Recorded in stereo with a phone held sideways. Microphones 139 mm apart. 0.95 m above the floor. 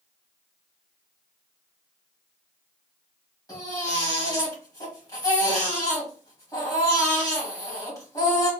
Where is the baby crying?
25° left (ahead or behind), 1.8 m.